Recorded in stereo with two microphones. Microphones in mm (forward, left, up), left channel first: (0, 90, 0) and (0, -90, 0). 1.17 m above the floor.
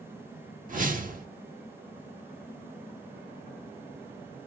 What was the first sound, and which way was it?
A whoosh, 50° right (ahead or behind).